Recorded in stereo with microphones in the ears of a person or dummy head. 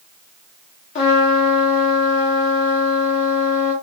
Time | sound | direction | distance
0.9 | a trumpet | 35° left (ahead or behind) | 0.9 m